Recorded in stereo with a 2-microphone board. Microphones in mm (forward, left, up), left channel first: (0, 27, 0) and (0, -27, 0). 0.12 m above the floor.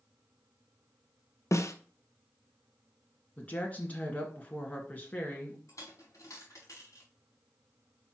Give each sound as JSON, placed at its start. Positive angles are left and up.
{"t": 1.5, "sound": "a snare drum", "side_deg": 65, "distance_m": 1.0}
{"t": 3.4, "sound": "a woman speaking", "side_deg": 25, "distance_m": 1.8}
{"t": 5.7, "sound": "a dropped coin", "side_deg": 65, "distance_m": 4.0}